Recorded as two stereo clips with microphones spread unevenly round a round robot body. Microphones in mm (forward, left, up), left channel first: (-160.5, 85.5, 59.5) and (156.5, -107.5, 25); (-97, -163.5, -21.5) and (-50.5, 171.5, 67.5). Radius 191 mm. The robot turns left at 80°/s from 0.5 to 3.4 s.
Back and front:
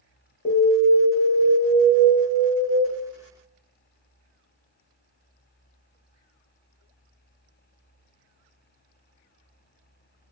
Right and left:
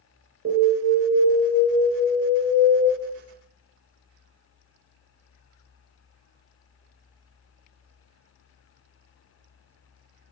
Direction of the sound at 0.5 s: 140° left.